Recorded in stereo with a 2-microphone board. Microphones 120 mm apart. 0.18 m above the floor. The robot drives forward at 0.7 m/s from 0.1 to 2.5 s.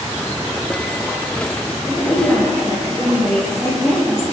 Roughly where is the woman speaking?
Centre.